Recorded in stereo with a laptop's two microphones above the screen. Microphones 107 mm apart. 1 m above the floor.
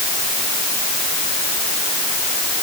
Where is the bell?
I don't hear a bell.